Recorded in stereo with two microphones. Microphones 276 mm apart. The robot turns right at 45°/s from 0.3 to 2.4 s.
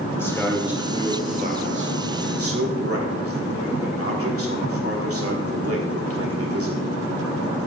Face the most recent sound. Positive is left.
turn(degrees=-95)